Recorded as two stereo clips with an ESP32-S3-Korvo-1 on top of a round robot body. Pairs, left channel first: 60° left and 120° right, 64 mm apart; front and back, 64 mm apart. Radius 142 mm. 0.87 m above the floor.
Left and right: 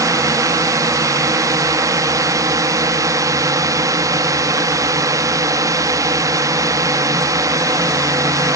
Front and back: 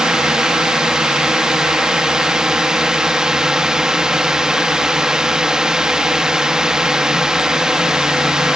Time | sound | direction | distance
0.0 | a drone | 100° right | ?